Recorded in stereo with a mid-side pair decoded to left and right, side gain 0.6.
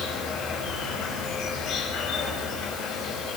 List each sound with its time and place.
0.0 s an insect: 60° left, 6.5 m